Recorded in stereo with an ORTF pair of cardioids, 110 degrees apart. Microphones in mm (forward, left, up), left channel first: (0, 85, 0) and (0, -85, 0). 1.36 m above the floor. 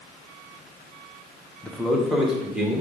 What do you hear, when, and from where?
1.6 s a man speaking: 5° left, 0.7 m; by 2.8 s 5° right, 1.7 m